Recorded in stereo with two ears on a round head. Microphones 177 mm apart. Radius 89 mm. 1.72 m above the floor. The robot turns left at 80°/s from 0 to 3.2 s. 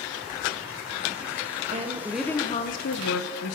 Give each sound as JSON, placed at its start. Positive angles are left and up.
{"t": 1.7, "sound": "a woman speaking", "azimuth_deg": -140, "distance_m": 1.5}